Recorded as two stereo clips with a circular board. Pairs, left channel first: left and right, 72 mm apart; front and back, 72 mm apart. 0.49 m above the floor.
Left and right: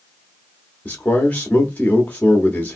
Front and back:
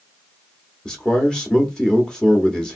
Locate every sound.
0.8 s a man speaking: 65° left, 0.7 m